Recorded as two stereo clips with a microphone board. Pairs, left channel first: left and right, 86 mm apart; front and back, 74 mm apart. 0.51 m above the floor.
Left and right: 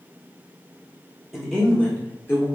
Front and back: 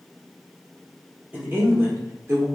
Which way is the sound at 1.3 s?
175° right.